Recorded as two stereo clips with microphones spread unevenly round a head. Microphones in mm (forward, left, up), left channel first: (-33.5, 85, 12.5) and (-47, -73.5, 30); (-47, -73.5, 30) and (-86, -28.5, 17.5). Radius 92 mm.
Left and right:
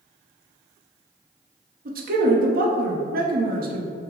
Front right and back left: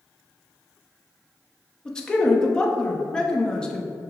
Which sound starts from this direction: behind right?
A man speaking, at 1.9 s.